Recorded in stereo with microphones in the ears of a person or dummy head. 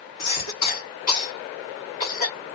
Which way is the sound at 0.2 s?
50° left (ahead or behind).